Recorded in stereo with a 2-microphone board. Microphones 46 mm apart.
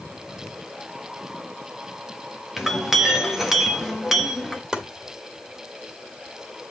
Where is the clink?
5° right (ahead or behind), 1.1 m.